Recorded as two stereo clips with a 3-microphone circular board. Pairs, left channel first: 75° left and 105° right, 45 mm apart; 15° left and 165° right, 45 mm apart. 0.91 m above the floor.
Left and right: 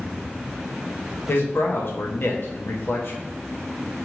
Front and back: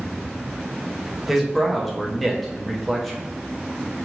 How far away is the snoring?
I don't hear snoring.